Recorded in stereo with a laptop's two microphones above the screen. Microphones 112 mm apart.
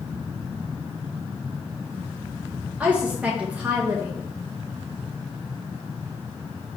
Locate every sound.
2.8 s a woman speaking: 10° right (ahead or behind), 0.8 m